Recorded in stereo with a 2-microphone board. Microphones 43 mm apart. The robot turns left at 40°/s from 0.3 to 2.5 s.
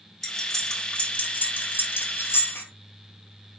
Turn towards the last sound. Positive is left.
turn(degrees=65)  # may be behind; listen again after turning